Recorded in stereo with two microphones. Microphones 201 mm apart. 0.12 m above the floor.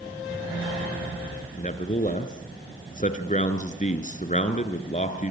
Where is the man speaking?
35° left (ahead or behind), 2 m.